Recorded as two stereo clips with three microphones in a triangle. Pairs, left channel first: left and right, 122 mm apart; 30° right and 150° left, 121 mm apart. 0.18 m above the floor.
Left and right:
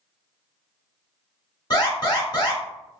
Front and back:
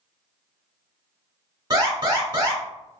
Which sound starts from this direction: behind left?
An alarm, at 1.7 s.